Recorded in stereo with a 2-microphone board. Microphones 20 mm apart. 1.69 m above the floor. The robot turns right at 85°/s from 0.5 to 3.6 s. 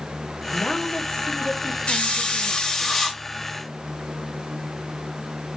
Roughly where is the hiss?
Left.